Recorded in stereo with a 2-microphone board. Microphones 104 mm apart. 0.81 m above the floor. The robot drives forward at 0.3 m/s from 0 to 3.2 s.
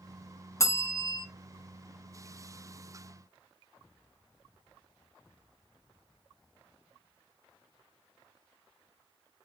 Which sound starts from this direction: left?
A bell, at 0.6 s.